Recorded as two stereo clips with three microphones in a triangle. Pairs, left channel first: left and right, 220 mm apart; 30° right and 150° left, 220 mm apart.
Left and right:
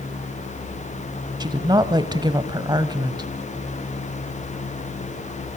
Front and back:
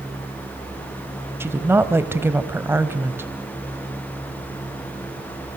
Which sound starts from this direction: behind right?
A woman speaking, at 1.4 s.